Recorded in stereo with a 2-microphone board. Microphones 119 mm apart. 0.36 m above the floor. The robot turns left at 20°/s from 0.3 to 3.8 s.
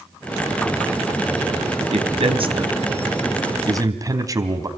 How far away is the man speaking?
About 3.5 m.